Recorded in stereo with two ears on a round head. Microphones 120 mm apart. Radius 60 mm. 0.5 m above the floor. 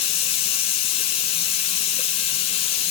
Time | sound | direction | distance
0.0 | running water | 45° left (ahead or behind) | 1.1 m